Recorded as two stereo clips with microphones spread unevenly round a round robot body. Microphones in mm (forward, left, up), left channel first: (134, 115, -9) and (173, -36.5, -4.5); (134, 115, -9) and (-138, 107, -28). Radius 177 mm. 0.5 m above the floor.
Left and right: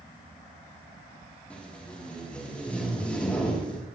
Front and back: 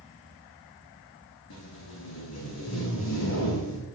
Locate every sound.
1.5 s tape being pulled: 20° left, 7.5 m